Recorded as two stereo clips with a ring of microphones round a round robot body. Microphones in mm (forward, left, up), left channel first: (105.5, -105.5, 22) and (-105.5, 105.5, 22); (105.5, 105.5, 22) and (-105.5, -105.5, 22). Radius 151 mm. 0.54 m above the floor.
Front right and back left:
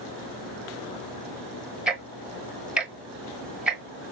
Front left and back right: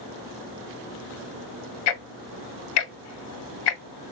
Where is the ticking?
50° left, 0.8 m.